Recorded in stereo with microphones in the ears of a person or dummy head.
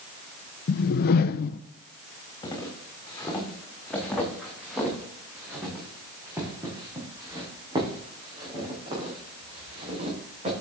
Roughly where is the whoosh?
Left.